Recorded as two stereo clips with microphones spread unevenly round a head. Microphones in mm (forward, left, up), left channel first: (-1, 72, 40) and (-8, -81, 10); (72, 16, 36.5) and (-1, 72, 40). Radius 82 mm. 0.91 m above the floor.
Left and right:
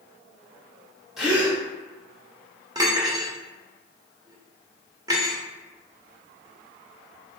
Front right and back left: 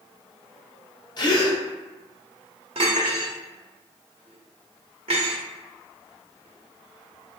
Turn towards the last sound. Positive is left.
turn(degrees=-165)